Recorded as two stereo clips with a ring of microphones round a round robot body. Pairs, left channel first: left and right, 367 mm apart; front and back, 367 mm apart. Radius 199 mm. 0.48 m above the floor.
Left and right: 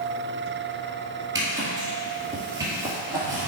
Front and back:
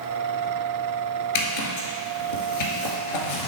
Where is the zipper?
5° right, 1.4 m.